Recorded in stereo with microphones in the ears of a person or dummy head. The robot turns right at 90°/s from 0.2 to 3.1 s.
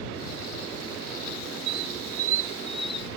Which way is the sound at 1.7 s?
20° right (ahead or behind).